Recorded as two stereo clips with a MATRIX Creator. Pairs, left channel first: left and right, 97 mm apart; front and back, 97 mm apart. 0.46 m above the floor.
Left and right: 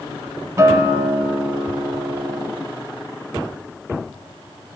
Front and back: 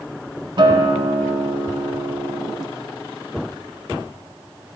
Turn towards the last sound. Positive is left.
turn(degrees=-145)